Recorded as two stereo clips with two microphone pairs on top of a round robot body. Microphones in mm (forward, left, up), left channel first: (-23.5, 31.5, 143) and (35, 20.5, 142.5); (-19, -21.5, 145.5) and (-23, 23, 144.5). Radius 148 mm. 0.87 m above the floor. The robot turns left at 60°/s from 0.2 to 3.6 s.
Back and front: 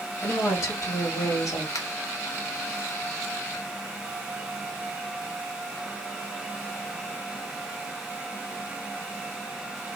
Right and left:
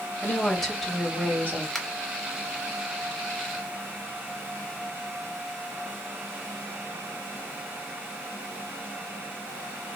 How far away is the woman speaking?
About 1.7 m.